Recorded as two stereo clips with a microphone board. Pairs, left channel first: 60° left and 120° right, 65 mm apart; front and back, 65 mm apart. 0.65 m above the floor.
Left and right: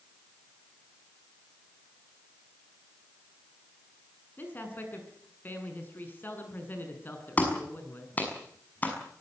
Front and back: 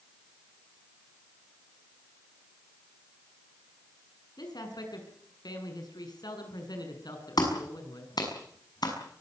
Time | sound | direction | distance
4.4 | a man speaking | straight ahead | 6.5 m
7.4 | a clap | 5° right | 6 m